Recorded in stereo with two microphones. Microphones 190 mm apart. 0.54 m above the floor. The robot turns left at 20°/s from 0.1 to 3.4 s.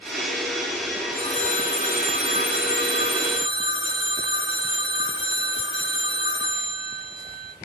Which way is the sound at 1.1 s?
150° left.